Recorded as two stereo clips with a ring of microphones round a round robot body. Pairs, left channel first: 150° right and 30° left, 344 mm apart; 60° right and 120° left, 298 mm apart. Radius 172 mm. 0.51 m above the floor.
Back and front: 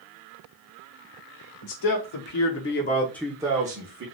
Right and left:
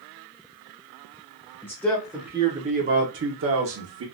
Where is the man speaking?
140° right, 1.2 m; by 4.0 s 85° left, 1.1 m.